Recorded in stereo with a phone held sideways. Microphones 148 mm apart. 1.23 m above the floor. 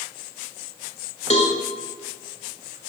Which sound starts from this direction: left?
A cowbell, at 1.3 s.